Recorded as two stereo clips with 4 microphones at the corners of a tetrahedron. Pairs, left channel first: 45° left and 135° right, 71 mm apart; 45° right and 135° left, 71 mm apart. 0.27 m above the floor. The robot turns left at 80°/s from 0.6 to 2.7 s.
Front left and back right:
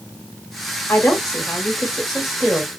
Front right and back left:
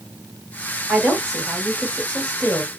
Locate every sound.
0.9 s a woman speaking: 45° left, 0.9 m; by 2.7 s 100° right, 0.9 m